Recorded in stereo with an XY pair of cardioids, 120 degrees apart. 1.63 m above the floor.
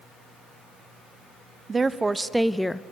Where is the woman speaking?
25° right, 0.9 m; by 2.8 s 15° left, 0.5 m.